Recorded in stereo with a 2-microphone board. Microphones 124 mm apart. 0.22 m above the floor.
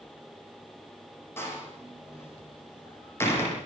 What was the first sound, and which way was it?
A door slam, 20° left (ahead or behind).